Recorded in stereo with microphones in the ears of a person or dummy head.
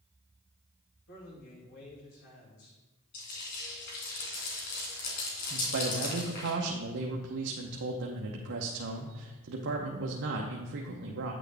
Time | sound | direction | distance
1.1 | a man speaking | 60° left (ahead or behind) | 2.5 m
3.1 | frying | 55° left (ahead or behind) | 3 m
5.5 | a man speaking | 70° right (ahead or behind) | 0.8 m